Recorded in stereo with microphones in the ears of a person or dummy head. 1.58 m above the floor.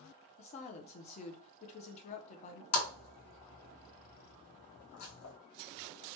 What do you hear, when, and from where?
0.4 s a woman speaking: 45° left (ahead or behind), 0.6 m
2.7 s a splash: 80° left, 1.0 m